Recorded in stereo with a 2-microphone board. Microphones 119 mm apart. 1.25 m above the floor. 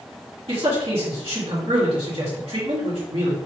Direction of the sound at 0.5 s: 55° right (ahead or behind).